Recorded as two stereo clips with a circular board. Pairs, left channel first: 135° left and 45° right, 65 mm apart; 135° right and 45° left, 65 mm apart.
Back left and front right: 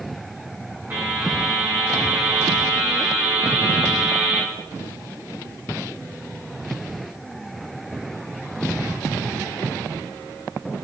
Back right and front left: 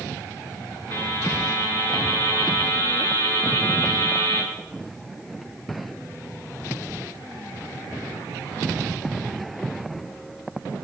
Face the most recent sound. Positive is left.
turn(degrees=-105)